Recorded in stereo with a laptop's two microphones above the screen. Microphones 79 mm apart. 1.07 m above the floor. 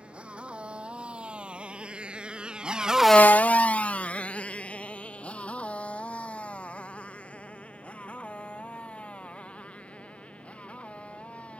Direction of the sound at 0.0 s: 15° right (ahead or behind).